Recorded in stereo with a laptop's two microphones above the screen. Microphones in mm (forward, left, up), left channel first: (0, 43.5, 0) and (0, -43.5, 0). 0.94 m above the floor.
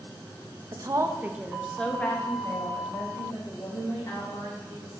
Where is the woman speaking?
50° right (ahead or behind), 0.6 m; by 5.0 s 45° left (ahead or behind), 2.5 m.